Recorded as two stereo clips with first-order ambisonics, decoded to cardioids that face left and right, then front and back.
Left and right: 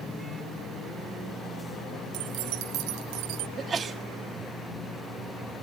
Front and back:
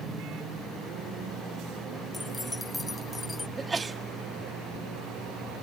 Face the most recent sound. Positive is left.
turn(degrees=-120)